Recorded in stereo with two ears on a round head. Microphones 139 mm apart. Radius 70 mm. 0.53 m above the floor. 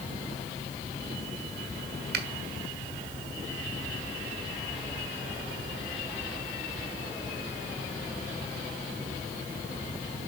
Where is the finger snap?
70° right (ahead or behind), 1.8 m.